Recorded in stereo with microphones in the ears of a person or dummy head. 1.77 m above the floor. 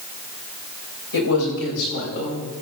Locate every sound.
1.1 s a man speaking: 80° left, 7.5 m; by 2.5 s 65° left (ahead or behind), 8.5 m